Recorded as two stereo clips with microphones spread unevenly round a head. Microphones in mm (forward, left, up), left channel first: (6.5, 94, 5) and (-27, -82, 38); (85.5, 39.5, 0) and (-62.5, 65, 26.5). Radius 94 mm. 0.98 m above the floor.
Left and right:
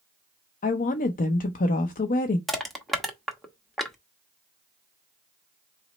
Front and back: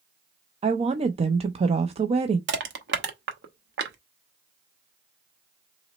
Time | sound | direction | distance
0.6 | a woman speaking | 115° left | 0.6 m
2.5 | crushing | 170° left | 0.9 m